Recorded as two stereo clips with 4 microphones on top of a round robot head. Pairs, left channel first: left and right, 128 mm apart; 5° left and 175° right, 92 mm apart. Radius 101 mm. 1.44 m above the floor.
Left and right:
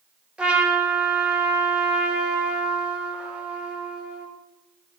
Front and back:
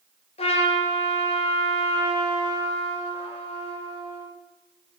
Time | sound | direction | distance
0.4 | a trumpet | 5° right | 1.6 m